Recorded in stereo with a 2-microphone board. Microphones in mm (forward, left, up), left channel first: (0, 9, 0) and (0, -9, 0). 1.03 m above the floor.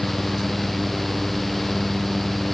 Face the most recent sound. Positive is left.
No sound to turn to.